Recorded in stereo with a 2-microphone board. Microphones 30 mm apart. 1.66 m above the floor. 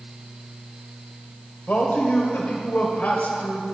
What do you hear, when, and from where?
1.7 s a man speaking: 70° left (ahead or behind), 1.4 m